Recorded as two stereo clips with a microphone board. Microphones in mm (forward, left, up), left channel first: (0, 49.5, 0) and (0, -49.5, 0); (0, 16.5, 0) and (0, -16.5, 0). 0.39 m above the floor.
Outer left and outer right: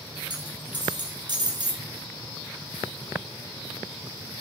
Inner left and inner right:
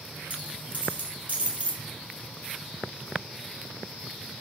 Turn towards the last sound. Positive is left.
turn(degrees=-45)  # may be behind; listen again after turning